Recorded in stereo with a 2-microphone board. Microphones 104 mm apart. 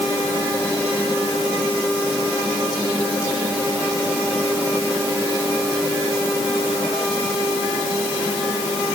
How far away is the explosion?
I don't hear an explosion.